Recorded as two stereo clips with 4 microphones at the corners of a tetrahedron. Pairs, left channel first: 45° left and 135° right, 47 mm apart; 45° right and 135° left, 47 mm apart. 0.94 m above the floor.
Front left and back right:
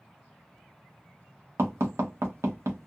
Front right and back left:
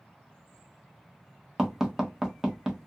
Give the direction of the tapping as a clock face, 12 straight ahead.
5 o'clock.